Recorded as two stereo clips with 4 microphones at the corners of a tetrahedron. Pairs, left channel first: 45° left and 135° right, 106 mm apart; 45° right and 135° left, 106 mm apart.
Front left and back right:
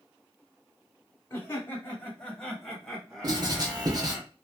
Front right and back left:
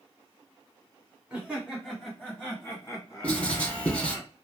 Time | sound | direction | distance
1.3 | laughter | 70° left | 1.2 m
3.2 | writing | 115° right | 0.9 m